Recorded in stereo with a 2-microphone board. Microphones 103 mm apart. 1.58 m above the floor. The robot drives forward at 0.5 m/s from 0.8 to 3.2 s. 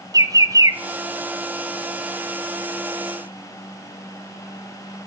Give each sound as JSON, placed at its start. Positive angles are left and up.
{"t": 0.1, "sound": "a bird", "side_deg": -35, "distance_m": 0.5}